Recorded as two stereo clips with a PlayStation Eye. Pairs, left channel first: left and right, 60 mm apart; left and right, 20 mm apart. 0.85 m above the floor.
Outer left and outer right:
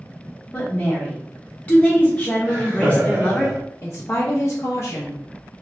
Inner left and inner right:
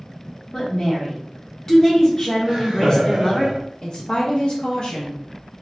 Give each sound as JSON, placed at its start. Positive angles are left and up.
{"t": 0.5, "sound": "a woman speaking", "side_deg": 20, "distance_m": 0.9}
{"t": 2.5, "sound": "laughter", "side_deg": -35, "distance_m": 1.7}
{"t": 3.8, "sound": "a woman speaking", "side_deg": 50, "distance_m": 0.6}